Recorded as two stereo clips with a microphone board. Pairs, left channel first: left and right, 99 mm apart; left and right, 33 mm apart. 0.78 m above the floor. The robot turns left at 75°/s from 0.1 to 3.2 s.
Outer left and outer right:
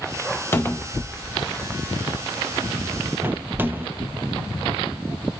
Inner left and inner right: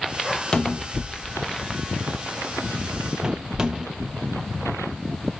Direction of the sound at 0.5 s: 25° left (ahead or behind).